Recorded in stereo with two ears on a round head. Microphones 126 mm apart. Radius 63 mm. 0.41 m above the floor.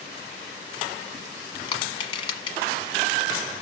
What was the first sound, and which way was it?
Crushing, 35° left (ahead or behind).